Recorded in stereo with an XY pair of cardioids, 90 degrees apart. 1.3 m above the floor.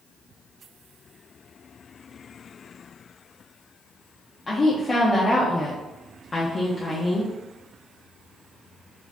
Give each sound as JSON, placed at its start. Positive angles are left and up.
{"t": 4.5, "sound": "a woman speaking", "azimuth_deg": 35, "distance_m": 0.6}